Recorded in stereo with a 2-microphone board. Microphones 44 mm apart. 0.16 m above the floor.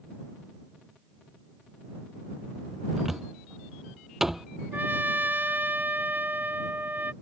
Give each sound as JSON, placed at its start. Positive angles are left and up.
{"t": 3.0, "sound": "a cupboard door", "side_deg": -5}
{"t": 4.7, "sound": "a trumpet", "side_deg": -45}